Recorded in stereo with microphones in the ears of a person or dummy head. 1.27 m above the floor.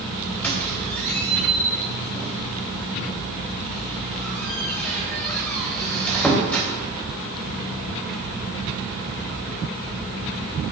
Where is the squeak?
10° left (ahead or behind), 3 m.